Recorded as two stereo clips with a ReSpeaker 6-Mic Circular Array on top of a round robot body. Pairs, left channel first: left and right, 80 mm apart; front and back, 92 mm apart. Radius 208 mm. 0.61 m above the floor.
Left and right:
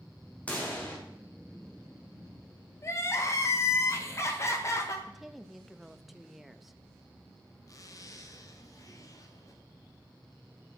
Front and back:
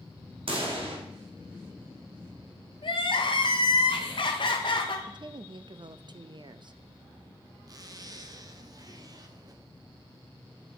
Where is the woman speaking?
Straight behind, 0.7 m.